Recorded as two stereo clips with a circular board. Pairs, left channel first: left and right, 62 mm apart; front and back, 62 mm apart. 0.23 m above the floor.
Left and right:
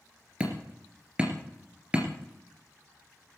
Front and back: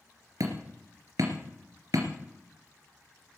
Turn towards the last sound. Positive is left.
turn(degrees=-160)